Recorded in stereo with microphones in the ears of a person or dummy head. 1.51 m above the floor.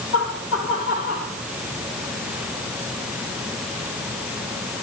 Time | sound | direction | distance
0.1 | laughter | 75° left (ahead or behind) | 1.8 m